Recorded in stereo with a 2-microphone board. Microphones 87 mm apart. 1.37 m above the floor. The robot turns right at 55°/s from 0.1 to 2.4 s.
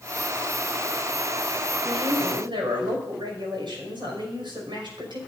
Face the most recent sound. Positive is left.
turn(degrees=-70)